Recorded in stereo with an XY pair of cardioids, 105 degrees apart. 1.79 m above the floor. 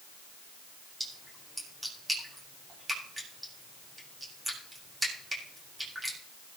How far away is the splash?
About 8.5 m.